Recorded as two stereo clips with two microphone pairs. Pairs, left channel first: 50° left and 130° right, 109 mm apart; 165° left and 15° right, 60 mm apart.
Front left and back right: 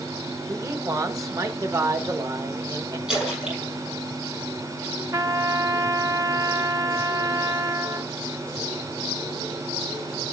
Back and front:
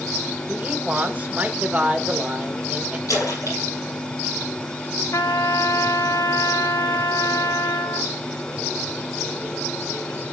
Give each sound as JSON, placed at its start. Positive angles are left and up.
{"t": 0.5, "sound": "a man speaking", "azimuth_deg": -75, "distance_m": 0.9}
{"t": 3.1, "sound": "a splash", "azimuth_deg": 145, "distance_m": 5.5}
{"t": 5.1, "sound": "a trumpet", "azimuth_deg": 175, "distance_m": 0.5}